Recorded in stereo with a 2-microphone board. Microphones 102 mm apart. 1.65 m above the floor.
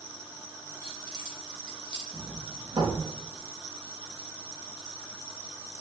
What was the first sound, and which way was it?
Keys jangling, 35° right (ahead or behind).